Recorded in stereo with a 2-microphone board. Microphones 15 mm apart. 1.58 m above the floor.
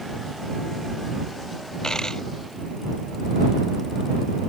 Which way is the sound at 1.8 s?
40° left (ahead or behind).